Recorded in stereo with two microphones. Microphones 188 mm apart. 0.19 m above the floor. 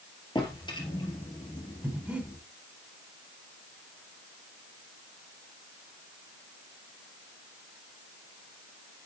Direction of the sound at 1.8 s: 10° right (ahead or behind).